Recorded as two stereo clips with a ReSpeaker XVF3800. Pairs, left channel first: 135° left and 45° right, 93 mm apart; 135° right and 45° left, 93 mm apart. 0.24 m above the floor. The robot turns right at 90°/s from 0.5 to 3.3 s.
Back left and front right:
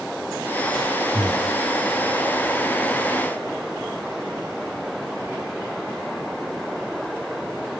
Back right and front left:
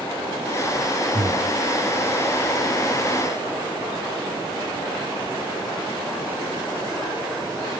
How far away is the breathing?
About 5.5 m.